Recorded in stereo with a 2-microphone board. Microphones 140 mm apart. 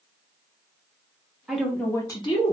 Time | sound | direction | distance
1.5 | a woman speaking | 5° right (ahead or behind) | 0.6 m